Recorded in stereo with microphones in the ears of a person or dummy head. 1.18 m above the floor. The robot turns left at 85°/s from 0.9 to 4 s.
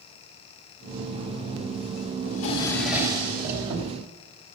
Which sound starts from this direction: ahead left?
A drawer, at 2.3 s.